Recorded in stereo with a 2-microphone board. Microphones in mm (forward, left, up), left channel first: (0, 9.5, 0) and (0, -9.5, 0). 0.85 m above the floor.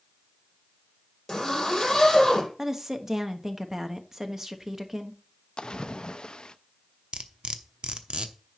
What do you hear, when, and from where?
1.3 s a zipper: 20° left (ahead or behind), 6 m
2.6 s a woman speaking: 25° right (ahead or behind), 1.1 m
5.6 s a splash: 55° left (ahead or behind), 0.6 m
7.1 s cutlery clinking: 65° right (ahead or behind), 0.9 m